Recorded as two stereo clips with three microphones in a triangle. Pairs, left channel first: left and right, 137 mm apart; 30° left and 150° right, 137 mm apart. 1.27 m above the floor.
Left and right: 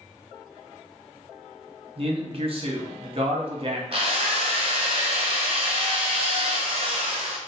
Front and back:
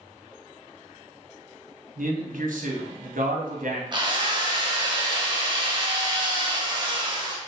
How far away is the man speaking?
About 0.7 m.